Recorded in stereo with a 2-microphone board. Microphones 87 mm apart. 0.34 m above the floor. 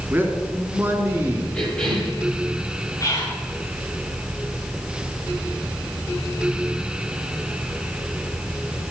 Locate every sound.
0.1 s a man speaking: 20° right (ahead or behind), 3.5 m
1.5 s a cough: 10° left (ahead or behind), 9 m
3.0 s whispering: 40° left (ahead or behind), 5.5 m